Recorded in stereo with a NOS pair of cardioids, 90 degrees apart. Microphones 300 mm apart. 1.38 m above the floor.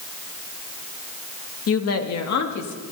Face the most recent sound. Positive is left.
turn(degrees=70)